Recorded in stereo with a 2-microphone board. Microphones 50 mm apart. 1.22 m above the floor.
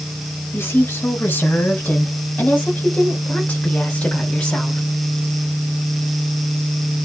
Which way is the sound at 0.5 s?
40° left (ahead or behind).